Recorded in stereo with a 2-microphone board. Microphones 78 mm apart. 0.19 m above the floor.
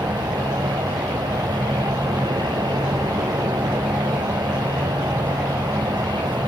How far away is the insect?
About 1.7 m.